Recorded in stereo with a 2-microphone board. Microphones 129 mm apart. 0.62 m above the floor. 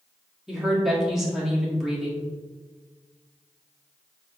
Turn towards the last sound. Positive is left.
turn(degrees=-5)  # may be behind; listen again after turning